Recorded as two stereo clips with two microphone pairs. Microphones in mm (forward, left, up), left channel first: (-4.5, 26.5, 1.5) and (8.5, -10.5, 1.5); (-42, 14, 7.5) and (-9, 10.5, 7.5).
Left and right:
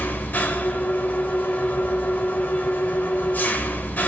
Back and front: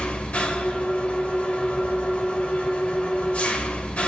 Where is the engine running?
135° left, 2.5 m.